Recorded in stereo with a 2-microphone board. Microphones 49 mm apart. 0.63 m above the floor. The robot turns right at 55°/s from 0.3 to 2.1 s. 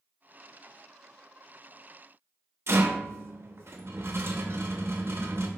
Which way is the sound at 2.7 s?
60° right (ahead or behind).